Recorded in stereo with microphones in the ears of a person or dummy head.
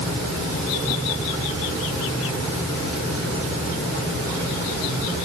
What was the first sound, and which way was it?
Only background noise.